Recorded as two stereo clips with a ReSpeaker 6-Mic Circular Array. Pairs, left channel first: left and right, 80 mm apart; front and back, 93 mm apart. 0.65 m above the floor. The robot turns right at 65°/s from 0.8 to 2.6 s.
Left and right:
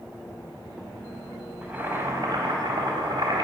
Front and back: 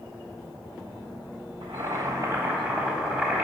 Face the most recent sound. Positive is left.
turn(degrees=-100)